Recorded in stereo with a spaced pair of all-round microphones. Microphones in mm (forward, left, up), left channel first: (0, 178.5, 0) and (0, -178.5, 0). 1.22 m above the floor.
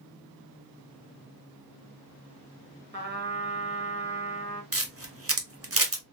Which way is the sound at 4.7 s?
40° right (ahead or behind).